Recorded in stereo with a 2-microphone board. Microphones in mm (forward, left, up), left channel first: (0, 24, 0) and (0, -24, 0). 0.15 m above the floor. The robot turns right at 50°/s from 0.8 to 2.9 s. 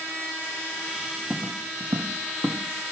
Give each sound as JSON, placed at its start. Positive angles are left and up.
{"t": 1.3, "sound": "footsteps", "side_deg": -15, "distance_m": 0.5}